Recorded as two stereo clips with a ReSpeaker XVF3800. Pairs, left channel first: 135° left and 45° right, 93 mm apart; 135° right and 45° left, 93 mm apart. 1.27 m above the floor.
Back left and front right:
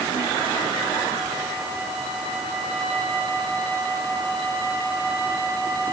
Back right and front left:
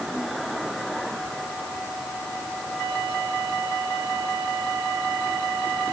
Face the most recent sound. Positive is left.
No sound to turn to.